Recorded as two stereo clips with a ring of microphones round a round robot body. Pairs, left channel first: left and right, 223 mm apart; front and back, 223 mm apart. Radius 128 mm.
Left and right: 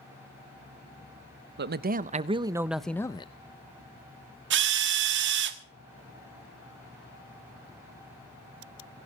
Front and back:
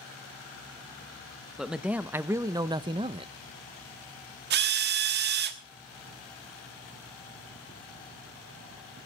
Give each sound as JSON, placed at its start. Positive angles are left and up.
{"t": 1.6, "sound": "a man speaking", "azimuth_deg": -90, "distance_m": 1.0}
{"t": 4.5, "sound": "a drill", "azimuth_deg": -130, "distance_m": 1.3}